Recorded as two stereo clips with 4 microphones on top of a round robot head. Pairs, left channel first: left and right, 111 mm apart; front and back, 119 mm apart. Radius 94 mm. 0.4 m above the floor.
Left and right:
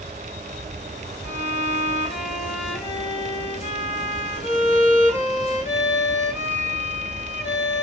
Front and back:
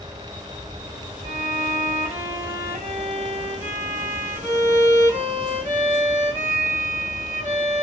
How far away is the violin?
About 3 m.